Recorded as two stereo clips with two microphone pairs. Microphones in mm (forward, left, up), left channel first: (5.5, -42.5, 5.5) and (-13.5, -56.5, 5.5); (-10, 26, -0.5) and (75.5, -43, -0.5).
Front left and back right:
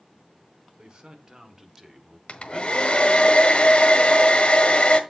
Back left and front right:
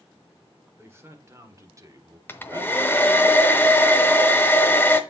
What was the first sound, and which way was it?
A man speaking, 105° right.